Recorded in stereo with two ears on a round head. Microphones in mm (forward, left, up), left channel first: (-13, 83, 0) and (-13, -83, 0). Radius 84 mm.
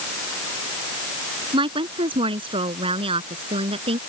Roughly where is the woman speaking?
Right.